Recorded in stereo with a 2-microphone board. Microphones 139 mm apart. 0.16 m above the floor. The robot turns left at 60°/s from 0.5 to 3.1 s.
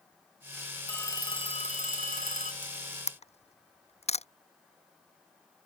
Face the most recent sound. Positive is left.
turn(degrees=50)  # may be behind; listen again after turning